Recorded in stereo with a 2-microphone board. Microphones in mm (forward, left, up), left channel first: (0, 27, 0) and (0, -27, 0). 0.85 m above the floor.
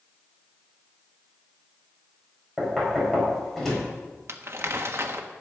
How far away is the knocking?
About 4.5 m.